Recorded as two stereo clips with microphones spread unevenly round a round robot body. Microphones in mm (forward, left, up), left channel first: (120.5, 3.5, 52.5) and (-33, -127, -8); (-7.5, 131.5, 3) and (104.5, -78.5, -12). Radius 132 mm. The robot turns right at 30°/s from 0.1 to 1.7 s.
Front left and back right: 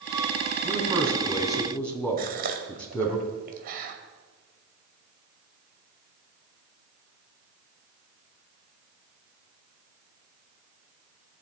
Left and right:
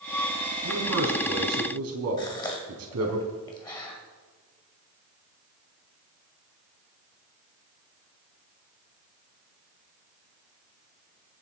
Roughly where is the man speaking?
Right.